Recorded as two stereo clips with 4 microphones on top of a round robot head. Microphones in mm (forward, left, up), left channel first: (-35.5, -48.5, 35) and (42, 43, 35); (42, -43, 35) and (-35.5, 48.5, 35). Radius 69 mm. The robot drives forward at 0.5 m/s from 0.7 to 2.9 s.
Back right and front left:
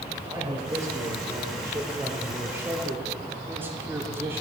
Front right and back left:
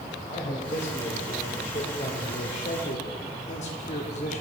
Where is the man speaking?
15° right, 3.5 m; by 4.4 s 25° right, 2.5 m.